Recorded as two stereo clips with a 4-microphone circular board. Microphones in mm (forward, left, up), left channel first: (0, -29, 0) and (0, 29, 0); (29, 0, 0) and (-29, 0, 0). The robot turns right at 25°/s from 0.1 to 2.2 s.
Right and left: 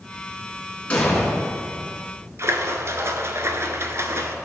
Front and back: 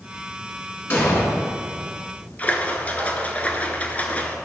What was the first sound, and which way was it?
An explosion, 35° right.